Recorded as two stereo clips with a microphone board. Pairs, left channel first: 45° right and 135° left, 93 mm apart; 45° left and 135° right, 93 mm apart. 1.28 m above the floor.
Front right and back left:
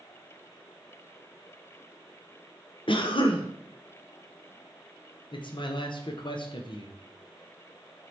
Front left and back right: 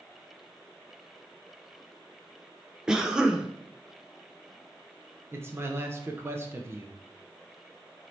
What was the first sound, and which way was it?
A cough, 55° right.